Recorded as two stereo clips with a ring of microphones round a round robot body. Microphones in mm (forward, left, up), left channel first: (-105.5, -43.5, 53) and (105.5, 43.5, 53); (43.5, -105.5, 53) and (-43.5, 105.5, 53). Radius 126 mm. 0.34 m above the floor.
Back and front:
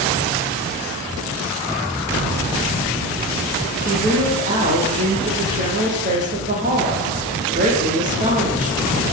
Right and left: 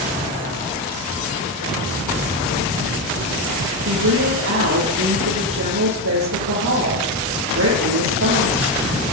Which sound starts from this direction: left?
A woman speaking, at 3.9 s.